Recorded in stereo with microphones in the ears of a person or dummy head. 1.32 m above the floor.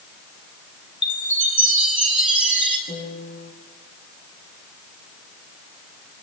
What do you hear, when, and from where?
1.0 s a chime: 10° right (ahead or behind), 3.5 m
2.9 s a piano: 60° left (ahead or behind), 8.5 m